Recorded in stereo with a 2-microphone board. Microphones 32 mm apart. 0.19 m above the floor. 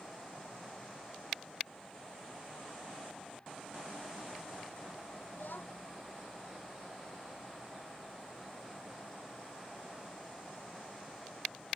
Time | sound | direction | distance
5.3 | a child speaking | 80° left | ?